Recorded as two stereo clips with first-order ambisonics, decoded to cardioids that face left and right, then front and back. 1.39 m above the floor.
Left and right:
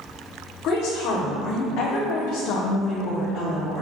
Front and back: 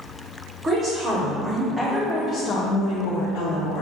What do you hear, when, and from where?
0.6 s a woman speaking: 115° left, 1.1 m; by 3.8 s 5° left, 0.9 m